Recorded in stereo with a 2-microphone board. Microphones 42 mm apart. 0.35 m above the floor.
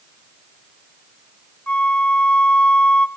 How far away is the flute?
About 0.5 m.